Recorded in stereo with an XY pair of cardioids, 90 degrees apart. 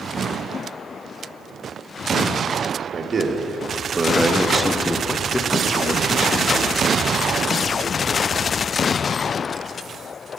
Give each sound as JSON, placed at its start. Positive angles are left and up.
{"t": 2.9, "sound": "a man speaking", "azimuth_deg": -45, "distance_m": 1.5}